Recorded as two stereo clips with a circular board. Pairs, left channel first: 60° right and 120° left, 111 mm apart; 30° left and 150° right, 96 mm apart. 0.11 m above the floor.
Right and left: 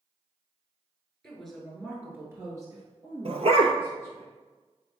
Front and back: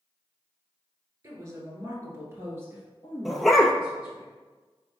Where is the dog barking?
120° left, 0.6 m.